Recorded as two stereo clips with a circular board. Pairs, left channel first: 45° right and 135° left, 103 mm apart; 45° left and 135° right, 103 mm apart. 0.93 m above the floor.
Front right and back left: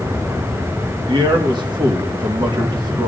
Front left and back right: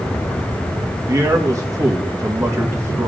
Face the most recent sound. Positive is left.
turn(degrees=170)